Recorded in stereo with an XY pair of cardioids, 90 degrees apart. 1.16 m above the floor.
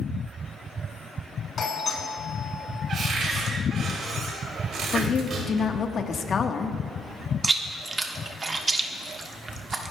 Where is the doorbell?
55° left, 3.5 m.